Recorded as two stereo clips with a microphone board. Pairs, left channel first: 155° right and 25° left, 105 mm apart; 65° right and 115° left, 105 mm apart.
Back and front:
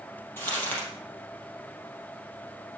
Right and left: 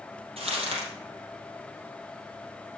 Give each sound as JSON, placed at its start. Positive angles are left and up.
{"t": 0.4, "sound": "crumpling", "azimuth_deg": 130, "distance_m": 4.5}